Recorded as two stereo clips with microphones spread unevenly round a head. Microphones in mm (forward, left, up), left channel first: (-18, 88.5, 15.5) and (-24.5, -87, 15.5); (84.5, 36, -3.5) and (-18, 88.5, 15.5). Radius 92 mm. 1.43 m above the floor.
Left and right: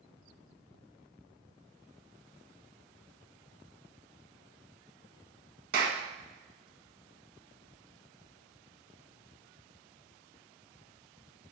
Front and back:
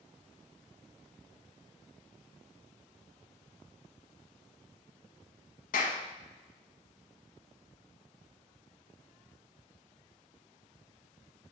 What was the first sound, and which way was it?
A clap, 45° right.